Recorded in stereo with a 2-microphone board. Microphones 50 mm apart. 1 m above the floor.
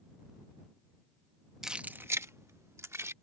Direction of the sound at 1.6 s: 10° right (ahead or behind).